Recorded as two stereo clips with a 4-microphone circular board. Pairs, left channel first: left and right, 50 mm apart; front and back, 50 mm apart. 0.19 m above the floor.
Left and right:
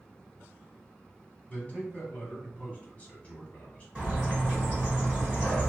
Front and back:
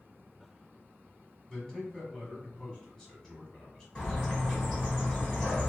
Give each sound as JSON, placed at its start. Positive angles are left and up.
{"t": 1.5, "sound": "a man speaking", "azimuth_deg": 60, "distance_m": 1.2}
{"t": 4.0, "sound": "a bird", "azimuth_deg": -55, "distance_m": 1.7}